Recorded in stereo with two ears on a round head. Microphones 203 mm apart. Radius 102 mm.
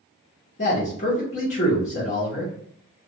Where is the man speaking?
35° left (ahead or behind), 0.8 m.